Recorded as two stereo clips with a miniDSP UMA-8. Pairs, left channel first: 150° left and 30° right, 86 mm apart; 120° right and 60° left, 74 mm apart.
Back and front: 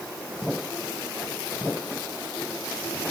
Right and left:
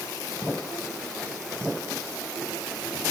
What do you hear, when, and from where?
Only background noise.